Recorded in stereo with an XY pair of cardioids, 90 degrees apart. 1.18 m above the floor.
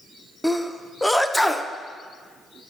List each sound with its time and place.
0.4 s a sneeze: 5° left, 0.5 m